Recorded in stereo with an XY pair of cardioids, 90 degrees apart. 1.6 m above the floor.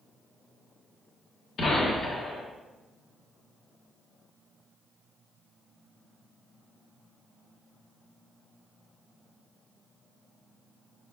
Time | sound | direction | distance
1.6 | a gunshot | 60° left | 1.8 m